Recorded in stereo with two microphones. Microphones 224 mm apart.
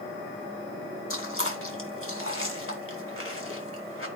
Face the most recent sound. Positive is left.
turn(degrees=70)  # may be behind; listen again after turning